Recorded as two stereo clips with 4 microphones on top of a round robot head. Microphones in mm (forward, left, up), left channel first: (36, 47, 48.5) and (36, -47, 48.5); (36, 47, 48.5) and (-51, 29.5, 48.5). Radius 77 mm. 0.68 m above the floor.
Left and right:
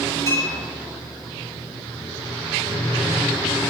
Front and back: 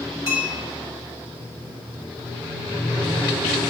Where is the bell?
40° left, 4 m.